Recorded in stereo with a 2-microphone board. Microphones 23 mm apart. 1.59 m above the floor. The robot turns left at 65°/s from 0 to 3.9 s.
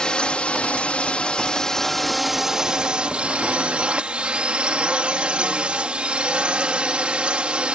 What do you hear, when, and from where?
0.0 s a drone: 140° left; by 7.8 s 115° right